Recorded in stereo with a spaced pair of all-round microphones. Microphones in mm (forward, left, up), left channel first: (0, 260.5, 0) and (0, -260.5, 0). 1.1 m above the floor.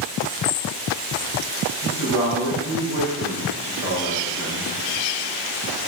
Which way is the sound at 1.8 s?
55° left (ahead or behind).